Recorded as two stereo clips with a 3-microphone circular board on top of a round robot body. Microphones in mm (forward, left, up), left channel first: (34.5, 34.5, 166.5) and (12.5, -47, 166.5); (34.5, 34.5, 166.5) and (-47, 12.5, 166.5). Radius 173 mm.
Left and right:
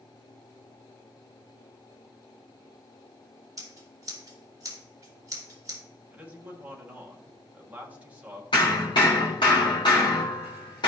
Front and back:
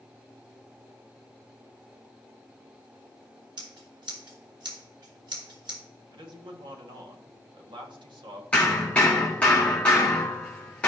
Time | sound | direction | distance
3.6 | scissors | 150° right | 2.5 m
6.1 | a man speaking | 175° right | 1.8 m
8.5 | hammering | 80° left | 0.7 m